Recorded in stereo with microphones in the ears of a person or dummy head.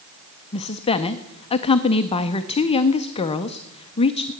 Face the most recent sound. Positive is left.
turn(degrees=30)  # may be behind; listen again after turning